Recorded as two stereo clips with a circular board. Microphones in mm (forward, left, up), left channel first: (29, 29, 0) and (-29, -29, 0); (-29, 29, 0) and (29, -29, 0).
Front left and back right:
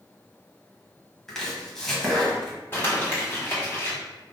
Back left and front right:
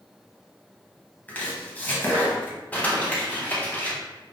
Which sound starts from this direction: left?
Crumpling, at 2.7 s.